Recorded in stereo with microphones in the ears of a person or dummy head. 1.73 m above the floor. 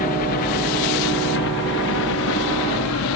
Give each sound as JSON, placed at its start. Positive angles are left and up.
{"t": 0.0, "sound": "a helicopter", "side_deg": 45}